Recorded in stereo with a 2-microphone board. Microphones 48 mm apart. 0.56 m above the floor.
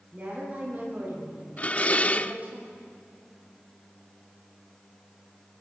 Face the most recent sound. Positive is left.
turn(degrees=30)  # may be behind; listen again after turning